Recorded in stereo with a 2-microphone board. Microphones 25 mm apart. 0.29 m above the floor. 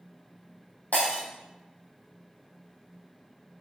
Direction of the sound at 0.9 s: 80° left.